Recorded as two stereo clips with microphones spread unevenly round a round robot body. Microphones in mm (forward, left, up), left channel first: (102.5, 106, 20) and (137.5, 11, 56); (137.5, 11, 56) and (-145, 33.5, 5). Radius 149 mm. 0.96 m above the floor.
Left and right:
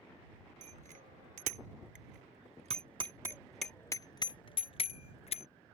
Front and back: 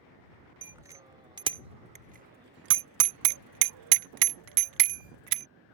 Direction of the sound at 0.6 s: 100° right.